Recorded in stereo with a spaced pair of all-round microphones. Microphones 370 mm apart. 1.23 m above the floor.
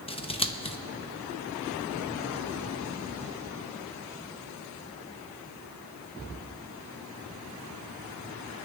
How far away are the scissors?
About 0.7 m.